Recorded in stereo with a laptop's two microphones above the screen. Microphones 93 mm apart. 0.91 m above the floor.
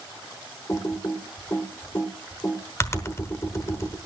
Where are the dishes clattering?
No dishes clattering in this recording.